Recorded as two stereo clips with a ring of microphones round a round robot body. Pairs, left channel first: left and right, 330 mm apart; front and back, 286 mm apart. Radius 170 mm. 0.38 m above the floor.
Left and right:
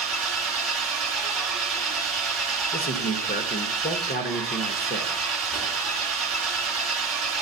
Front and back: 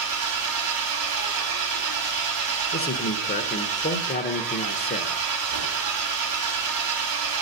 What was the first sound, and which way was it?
An engine running, straight behind.